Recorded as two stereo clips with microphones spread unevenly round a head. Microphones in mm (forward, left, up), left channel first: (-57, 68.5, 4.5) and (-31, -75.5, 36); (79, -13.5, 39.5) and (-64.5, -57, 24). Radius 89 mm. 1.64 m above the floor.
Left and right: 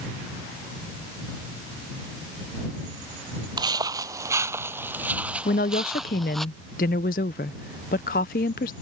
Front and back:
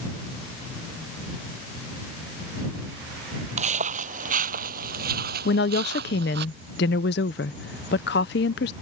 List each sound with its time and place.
3.6 s footsteps: 125° right; by 6.5 s 165° right
5.5 s a woman speaking: 50° left